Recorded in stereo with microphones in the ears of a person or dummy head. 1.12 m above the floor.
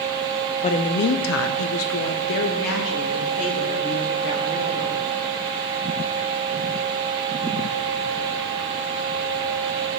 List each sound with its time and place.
0.6 s a woman speaking: 30° left (ahead or behind), 0.6 m; by 5.0 s 40° left (ahead or behind), 2.5 m